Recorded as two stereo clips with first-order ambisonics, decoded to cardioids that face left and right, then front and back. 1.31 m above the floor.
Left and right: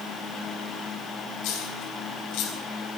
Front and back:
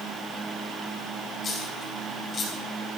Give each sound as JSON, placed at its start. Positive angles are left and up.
{"t": 1.4, "sound": "a dropped coin", "azimuth_deg": 65, "distance_m": 4.0}